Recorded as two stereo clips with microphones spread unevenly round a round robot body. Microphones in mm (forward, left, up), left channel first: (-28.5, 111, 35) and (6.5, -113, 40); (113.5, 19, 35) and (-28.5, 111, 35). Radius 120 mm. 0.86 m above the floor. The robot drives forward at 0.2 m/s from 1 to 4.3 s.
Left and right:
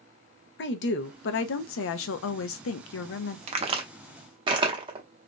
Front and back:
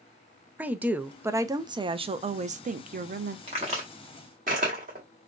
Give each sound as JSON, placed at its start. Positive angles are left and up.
{"t": 0.6, "sound": "a woman speaking", "azimuth_deg": 65, "distance_m": 0.6}
{"t": 3.5, "sound": "a crack", "azimuth_deg": -145, "distance_m": 0.7}